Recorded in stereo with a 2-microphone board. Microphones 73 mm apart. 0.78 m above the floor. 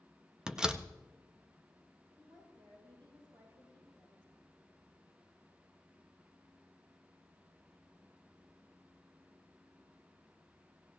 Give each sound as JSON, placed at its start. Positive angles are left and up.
{"t": 0.5, "sound": "a door slam", "side_deg": -10, "distance_m": 0.5}
{"t": 2.2, "sound": "a woman speaking", "side_deg": -85, "distance_m": 8.5}